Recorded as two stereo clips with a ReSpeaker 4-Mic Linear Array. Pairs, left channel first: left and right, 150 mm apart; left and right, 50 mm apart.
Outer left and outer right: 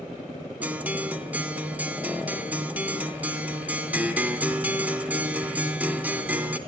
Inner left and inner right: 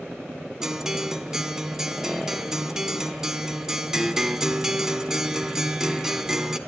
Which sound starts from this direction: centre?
A guitar, at 0.6 s.